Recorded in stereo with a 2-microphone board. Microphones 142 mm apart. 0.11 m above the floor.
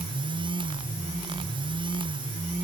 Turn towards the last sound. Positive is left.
No sound to turn to.